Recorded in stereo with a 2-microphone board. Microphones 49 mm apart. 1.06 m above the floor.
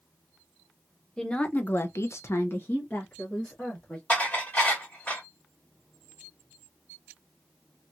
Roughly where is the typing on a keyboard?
I don't hear typing on a keyboard.